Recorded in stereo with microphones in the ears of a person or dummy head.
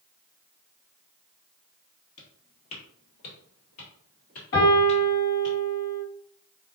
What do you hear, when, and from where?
2.2 s footsteps: 35° left (ahead or behind), 2.0 m; by 5.5 s 25° left (ahead or behind), 1.9 m
4.5 s a piano: 45° left (ahead or behind), 1.9 m